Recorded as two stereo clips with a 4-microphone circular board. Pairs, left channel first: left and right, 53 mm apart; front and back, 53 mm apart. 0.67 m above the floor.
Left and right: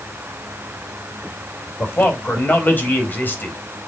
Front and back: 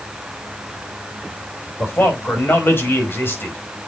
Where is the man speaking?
40° left, 4 m.